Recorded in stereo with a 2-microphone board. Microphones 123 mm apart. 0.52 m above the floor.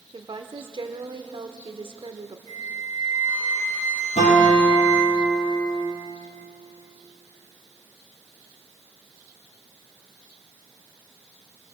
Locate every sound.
0.1 s a woman speaking: 40° right (ahead or behind), 1.0 m
2.5 s a flute: 70° right (ahead or behind), 2 m
4.2 s a guitar: 70° left (ahead or behind), 5.5 m